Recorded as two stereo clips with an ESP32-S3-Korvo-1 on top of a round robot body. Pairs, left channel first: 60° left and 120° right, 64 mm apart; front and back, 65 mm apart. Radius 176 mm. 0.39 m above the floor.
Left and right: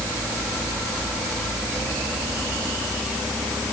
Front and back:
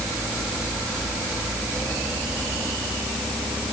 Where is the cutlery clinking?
No cutlery clinking in this recording.